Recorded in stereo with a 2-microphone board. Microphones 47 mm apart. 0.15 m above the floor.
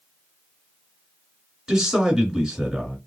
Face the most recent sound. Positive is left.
turn(degrees=-10)  # may be behind; listen again after turning